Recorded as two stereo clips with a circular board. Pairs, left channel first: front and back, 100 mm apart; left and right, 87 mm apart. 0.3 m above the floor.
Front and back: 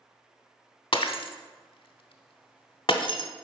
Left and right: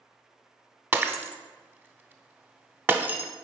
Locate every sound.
0.9 s breaking glass: 25° right, 0.6 m